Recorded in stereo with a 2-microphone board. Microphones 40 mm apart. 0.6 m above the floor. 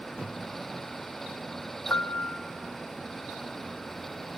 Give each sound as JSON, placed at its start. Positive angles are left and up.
{"t": 1.9, "sound": "a piano", "side_deg": 65, "distance_m": 0.5}